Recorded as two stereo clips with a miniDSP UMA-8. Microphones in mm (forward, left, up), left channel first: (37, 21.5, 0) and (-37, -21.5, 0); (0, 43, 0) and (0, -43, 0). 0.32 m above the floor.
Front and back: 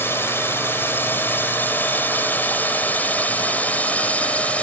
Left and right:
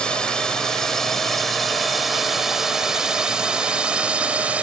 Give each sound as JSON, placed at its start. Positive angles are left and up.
{"t": 0.0, "sound": "a drone", "azimuth_deg": 25}